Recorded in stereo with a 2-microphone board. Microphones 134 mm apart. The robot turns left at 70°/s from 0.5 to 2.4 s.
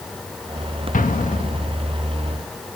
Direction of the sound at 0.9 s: 95° left.